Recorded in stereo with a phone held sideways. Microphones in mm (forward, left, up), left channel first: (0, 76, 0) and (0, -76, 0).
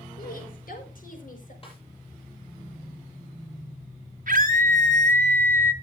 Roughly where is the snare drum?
Left.